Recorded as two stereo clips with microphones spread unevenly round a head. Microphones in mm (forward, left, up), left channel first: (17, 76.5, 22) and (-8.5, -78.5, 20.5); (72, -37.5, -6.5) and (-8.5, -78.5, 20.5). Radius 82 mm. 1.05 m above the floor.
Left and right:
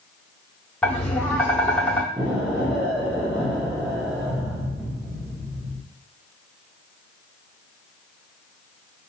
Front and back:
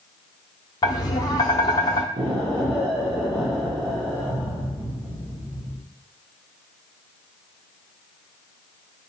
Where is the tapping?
10° left, 0.6 m.